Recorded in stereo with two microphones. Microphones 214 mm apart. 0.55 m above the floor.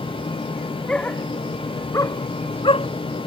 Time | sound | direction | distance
0.9 | a dog barking | 5° left (ahead or behind) | ?